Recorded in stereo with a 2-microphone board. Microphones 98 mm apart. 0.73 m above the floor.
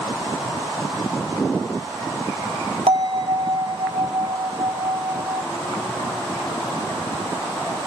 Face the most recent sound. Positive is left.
turn(degrees=-65)  # may be behind; listen again after turning